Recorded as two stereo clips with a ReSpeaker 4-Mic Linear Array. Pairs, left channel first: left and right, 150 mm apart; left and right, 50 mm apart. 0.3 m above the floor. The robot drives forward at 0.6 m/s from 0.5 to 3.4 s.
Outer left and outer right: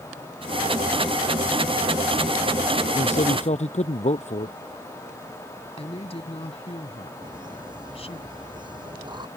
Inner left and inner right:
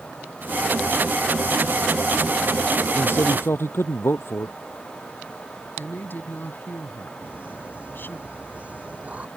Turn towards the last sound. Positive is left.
turn(degrees=-30)  # may be behind; listen again after turning